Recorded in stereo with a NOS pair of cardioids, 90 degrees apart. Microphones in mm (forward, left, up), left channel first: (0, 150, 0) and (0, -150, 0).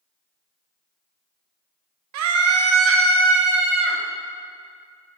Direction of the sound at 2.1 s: 70° right.